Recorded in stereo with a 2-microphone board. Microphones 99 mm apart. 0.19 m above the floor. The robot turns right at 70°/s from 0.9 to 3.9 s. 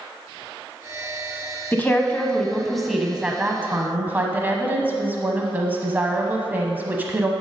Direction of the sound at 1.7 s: 20° left (ahead or behind).